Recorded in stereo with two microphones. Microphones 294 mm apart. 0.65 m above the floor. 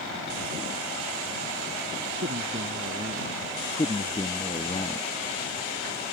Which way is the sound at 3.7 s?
20° left (ahead or behind).